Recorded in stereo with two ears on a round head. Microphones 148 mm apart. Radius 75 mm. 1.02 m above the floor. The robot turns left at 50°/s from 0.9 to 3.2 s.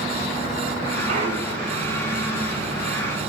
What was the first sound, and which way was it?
A clunk, 135° right.